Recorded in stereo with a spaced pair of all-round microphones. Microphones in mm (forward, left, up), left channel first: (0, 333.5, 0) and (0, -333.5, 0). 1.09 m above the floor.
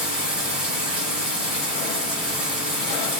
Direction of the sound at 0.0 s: Centre (ahead or behind).